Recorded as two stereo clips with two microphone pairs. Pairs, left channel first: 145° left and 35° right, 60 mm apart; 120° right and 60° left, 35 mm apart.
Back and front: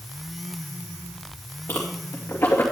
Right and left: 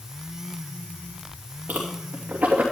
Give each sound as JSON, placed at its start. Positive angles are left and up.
{"t": 1.7, "sound": "a whoosh", "azimuth_deg": 100, "distance_m": 2.5}